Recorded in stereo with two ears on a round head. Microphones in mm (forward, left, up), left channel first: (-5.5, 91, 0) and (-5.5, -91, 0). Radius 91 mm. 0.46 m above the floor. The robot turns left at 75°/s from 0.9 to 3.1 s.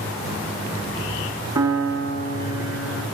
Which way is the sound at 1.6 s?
160° right.